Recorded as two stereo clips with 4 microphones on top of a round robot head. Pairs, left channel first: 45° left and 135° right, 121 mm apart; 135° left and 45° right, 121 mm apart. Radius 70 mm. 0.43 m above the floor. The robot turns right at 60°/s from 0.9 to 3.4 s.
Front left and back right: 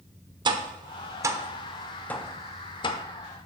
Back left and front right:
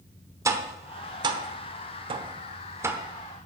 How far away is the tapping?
About 1.1 m.